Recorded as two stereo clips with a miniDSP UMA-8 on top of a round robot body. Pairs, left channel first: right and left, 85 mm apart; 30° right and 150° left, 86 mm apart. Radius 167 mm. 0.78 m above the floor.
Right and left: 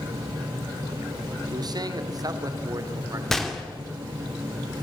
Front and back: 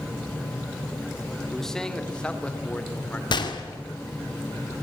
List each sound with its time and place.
1.5 s a man speaking: 55° left, 2.5 m; by 3.2 s 40° left, 3.5 m
3.3 s a gunshot: 5° right, 2.5 m